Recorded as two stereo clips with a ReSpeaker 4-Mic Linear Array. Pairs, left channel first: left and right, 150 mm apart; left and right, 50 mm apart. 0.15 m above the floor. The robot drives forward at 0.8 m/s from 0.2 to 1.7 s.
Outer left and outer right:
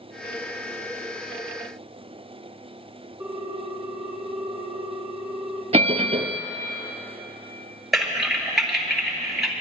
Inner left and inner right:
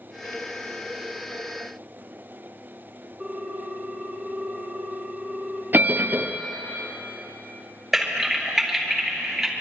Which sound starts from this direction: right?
A bell, at 5.7 s.